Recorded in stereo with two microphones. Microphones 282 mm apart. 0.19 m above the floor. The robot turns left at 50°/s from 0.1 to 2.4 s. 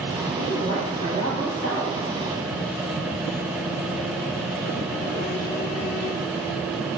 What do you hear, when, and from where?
0.4 s a woman speaking: 55° left, 1.8 m; by 1.9 s 20° right, 1.8 m